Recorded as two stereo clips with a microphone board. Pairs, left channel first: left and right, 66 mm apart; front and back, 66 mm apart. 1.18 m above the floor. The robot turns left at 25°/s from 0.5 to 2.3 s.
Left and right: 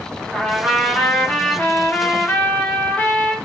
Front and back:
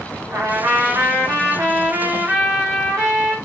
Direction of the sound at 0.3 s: 175° left.